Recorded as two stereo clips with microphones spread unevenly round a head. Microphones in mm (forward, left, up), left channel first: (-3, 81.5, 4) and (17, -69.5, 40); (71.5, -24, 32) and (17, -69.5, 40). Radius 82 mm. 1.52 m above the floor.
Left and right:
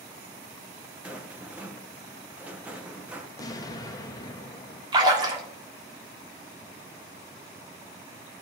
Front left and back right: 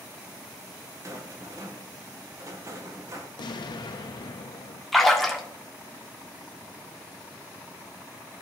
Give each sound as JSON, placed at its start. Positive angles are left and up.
{"t": 1.0, "sound": "a rattle", "azimuth_deg": -145, "distance_m": 0.6}
{"t": 3.4, "sound": "an explosion", "azimuth_deg": 35, "distance_m": 0.7}
{"t": 4.9, "sound": "a splash", "azimuth_deg": -55, "distance_m": 1.3}